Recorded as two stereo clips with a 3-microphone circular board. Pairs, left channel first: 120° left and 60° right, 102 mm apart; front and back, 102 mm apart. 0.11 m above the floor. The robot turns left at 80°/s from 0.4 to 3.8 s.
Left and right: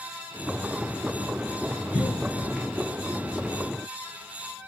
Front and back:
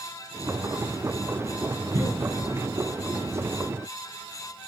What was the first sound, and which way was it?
A cough, 155° right.